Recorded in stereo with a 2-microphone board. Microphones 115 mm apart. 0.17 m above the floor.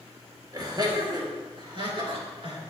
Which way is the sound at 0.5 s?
35° right (ahead or behind).